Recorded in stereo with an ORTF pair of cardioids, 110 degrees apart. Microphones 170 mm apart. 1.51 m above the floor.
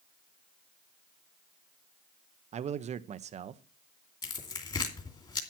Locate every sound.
2.5 s a man speaking: 45° right, 0.8 m
4.2 s tearing paper: 30° left, 2.5 m